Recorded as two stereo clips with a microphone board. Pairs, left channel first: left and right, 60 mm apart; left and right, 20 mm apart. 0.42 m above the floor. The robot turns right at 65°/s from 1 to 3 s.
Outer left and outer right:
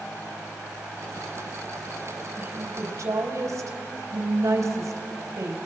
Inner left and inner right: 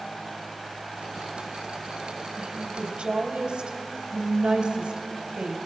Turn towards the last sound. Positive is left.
turn(degrees=-105)